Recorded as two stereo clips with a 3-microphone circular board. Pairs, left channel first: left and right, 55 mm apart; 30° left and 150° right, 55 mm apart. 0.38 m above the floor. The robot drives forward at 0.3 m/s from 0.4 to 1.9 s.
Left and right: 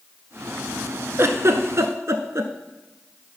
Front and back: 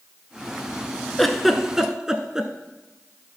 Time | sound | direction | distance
1.2 | a giggle | 55° right | 0.9 m